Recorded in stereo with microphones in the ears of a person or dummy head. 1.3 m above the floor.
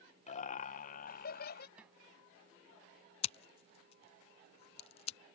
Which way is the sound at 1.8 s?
10° right (ahead or behind).